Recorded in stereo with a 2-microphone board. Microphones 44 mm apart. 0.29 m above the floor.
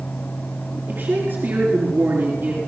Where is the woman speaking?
50° right (ahead or behind), 4.5 m.